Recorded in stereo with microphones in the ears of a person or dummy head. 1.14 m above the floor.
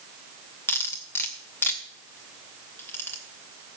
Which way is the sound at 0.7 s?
15° left (ahead or behind).